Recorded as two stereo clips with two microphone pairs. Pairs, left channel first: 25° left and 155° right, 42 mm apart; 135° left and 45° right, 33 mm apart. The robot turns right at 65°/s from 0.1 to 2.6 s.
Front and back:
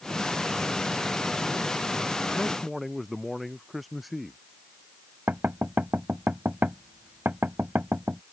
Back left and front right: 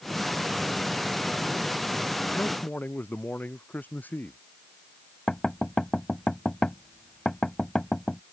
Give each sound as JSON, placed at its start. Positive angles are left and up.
{"t": 2.3, "sound": "a man speaking", "azimuth_deg": 95}
{"t": 5.3, "sound": "knocking", "azimuth_deg": -160}